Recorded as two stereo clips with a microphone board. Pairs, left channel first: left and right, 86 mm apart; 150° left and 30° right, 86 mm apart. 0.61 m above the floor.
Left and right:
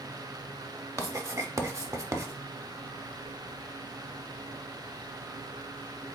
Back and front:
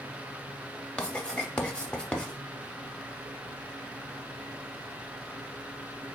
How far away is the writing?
About 0.5 m.